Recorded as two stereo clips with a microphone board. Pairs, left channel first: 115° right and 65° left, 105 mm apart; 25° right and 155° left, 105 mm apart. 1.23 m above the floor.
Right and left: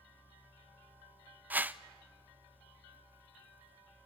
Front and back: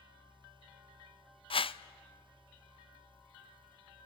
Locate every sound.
1.5 s a whoosh: 5° right, 0.5 m